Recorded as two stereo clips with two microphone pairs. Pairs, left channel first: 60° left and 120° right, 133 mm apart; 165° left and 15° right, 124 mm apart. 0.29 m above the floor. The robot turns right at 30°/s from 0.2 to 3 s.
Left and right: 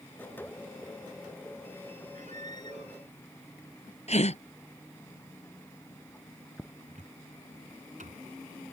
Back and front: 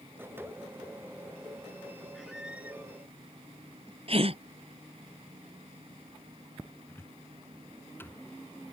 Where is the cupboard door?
125° right.